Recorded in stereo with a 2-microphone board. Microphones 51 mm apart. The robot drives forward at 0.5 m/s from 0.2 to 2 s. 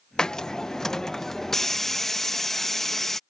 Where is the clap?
No clap in this recording.